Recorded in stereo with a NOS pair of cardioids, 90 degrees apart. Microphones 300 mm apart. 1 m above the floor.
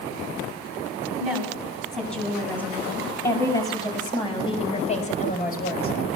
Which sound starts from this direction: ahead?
A woman speaking, at 1.2 s.